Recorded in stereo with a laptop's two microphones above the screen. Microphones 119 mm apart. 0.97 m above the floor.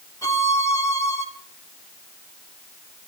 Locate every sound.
0.2 s a violin: 30° left (ahead or behind), 1.9 m